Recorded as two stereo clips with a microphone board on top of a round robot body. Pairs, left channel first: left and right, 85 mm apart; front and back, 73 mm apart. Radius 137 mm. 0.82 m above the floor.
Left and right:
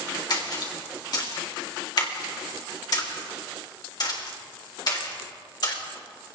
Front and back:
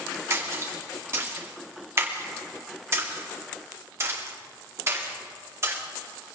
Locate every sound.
0.3 s a splash: 125° left, 2.5 m